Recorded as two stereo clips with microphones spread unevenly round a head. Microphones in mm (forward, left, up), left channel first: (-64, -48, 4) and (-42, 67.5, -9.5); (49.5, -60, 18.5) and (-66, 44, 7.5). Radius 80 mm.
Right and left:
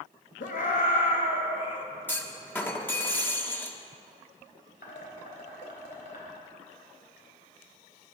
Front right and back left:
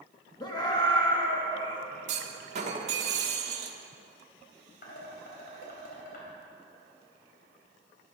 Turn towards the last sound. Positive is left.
turn(degrees=-75)